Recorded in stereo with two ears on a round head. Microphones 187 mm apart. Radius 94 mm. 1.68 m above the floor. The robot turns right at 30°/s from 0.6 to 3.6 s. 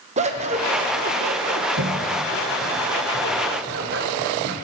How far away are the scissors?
About 1.2 m.